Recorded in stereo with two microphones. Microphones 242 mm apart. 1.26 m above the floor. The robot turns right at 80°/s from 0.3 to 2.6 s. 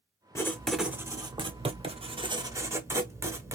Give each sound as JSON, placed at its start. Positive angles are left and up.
{"t": 0.3, "sound": "writing", "side_deg": 10, "distance_m": 1.0}